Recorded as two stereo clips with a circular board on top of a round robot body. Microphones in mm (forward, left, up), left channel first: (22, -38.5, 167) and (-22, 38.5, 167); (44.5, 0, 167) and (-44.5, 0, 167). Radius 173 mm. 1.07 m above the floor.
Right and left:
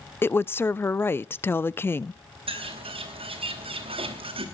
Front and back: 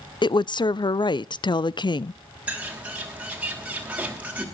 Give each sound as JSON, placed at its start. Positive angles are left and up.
{"t": 0.2, "sound": "a woman speaking", "azimuth_deg": 0, "distance_m": 0.6}
{"t": 2.5, "sound": "a bird", "azimuth_deg": 105, "distance_m": 2.5}